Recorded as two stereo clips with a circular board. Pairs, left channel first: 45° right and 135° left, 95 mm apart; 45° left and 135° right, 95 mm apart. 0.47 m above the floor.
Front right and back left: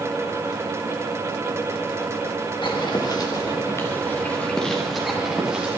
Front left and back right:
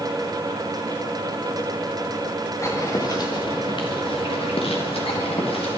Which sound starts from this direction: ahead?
Footsteps, at 2.6 s.